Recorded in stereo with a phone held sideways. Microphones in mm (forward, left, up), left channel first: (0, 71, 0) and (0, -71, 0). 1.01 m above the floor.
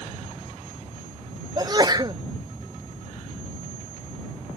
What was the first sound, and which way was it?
A sneeze, 30° right (ahead or behind).